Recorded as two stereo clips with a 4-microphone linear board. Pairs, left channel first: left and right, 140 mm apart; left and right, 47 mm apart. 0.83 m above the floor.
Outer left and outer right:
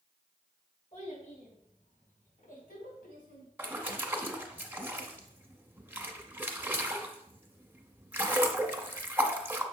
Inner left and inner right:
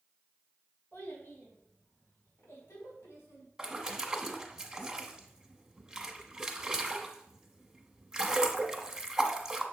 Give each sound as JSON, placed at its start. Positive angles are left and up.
{"t": 0.9, "sound": "a child speaking", "side_deg": 50, "distance_m": 3.5}
{"t": 3.6, "sound": "a splash", "side_deg": -15, "distance_m": 1.0}